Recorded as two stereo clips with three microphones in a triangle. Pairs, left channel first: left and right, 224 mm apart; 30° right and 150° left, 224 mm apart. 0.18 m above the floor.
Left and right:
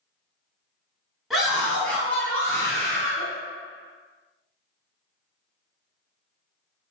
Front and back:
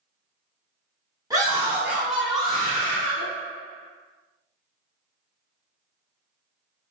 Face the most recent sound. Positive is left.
turn(degrees=35)